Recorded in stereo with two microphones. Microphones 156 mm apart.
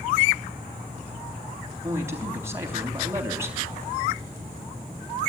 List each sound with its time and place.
1.8 s a man speaking: 15° right (ahead or behind), 3 m